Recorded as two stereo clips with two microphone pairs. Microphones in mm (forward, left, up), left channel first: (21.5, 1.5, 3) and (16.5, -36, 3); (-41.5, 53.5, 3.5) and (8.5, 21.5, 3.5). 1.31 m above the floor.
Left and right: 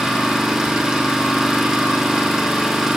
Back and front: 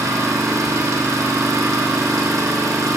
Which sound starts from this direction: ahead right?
An engine running, at 0.0 s.